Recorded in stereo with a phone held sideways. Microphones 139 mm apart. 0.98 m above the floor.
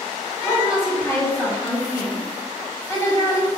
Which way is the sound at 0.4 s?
20° left (ahead or behind).